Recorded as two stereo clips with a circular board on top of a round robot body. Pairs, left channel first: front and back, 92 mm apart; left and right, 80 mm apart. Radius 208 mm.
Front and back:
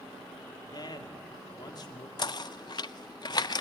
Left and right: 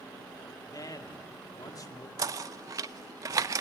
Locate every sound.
0.7 s a man speaking: 45° left, 2 m
2.2 s knocking: 40° right, 0.6 m